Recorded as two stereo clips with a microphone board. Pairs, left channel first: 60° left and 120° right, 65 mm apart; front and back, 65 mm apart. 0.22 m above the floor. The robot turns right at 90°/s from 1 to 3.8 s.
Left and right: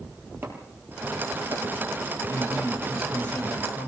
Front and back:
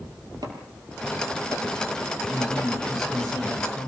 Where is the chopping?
175° right, 5 m; by 2.7 s 25° right, 5 m.